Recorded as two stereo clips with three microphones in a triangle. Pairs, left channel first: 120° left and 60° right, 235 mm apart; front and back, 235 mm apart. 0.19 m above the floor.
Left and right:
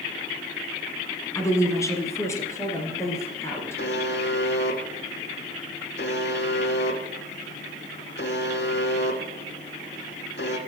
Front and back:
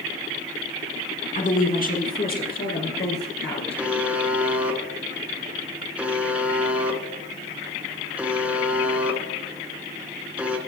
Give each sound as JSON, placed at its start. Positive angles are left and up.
{"t": 1.4, "sound": "a woman speaking", "azimuth_deg": 45, "distance_m": 1.7}
{"t": 3.8, "sound": "a buzzer", "azimuth_deg": 95, "distance_m": 1.3}